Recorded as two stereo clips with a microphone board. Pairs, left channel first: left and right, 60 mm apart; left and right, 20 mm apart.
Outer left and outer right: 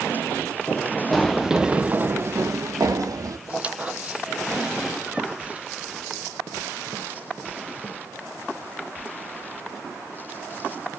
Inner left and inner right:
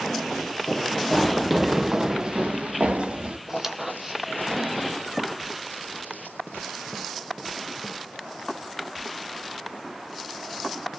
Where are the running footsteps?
15° left (ahead or behind), 2.5 m; by 3.4 s 85° right, 2.5 m.